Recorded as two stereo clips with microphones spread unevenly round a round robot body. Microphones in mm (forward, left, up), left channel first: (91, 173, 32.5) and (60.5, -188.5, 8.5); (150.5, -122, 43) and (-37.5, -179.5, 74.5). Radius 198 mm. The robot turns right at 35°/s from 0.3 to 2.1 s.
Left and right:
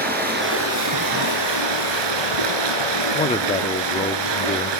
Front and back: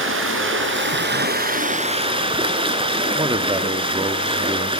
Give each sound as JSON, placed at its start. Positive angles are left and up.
{"t": 0.0, "sound": "running water", "azimuth_deg": -165, "distance_m": 4.0}
{"t": 3.1, "sound": "a man speaking", "azimuth_deg": 145, "distance_m": 1.2}